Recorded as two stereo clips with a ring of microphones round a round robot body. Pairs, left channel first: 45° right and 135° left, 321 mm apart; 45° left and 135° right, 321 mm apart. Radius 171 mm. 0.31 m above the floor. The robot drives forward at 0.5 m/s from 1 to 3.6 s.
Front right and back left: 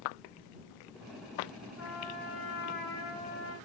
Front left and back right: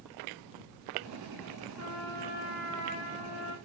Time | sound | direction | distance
1.8 | a trumpet | 5° right | 9 m